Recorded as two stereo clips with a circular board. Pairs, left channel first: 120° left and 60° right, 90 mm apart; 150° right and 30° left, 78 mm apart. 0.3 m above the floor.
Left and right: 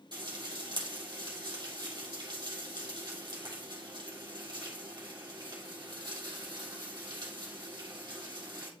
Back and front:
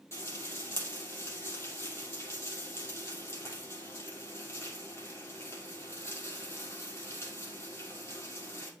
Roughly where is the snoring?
No snoring in this recording.